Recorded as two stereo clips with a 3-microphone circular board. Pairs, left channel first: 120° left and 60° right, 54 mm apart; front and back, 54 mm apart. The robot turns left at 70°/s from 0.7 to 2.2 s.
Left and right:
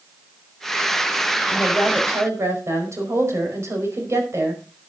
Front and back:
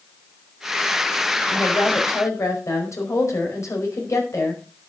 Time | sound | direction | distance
1.5 | a woman speaking | 25° left | 5 m